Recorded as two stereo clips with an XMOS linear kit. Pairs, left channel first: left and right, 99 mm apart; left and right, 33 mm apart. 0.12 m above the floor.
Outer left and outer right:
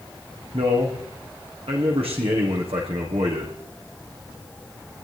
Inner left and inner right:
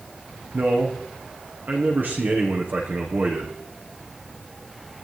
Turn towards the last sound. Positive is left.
turn(degrees=-75)  # may be behind; listen again after turning